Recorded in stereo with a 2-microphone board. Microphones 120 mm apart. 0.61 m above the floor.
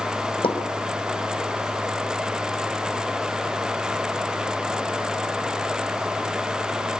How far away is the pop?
About 4 m.